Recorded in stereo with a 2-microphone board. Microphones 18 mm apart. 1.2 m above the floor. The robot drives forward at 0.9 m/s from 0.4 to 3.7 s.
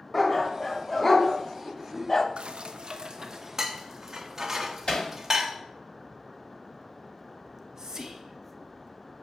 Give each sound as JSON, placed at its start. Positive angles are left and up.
{"t": 0.1, "sound": "a dog barking", "side_deg": 10, "distance_m": 2.0}
{"t": 2.4, "sound": "dishes clattering", "side_deg": -70, "distance_m": 0.7}
{"t": 4.9, "sound": "hammering", "side_deg": 75, "distance_m": 2.5}
{"t": 7.5, "sound": "whispering", "side_deg": -35, "distance_m": 0.7}